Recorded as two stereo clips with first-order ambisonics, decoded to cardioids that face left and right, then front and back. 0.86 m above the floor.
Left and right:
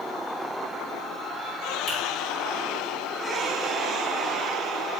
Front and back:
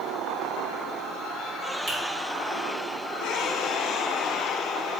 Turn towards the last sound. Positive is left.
turn(degrees=130)